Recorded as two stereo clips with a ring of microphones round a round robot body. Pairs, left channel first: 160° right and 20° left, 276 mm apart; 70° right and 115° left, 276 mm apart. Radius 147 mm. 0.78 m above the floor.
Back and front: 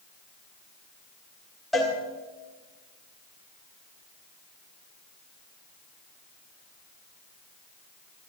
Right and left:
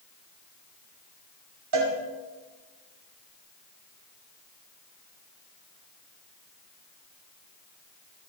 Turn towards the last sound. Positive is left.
turn(degrees=115)